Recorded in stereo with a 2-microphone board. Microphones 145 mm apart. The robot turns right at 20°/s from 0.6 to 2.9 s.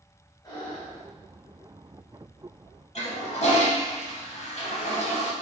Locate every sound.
0.4 s breathing: 25° left (ahead or behind), 1.3 m
3.0 s a toilet flushing: 50° left (ahead or behind), 0.6 m